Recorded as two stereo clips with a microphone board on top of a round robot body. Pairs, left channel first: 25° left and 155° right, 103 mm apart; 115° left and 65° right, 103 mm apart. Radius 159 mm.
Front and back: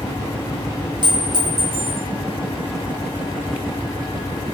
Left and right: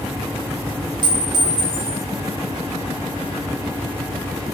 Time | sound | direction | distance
1.0 | a clink | 115° right | 2.0 m